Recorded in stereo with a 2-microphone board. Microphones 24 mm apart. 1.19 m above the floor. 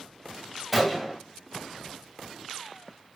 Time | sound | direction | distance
0.7 | a gunshot | 5° right (ahead or behind) | 1.3 m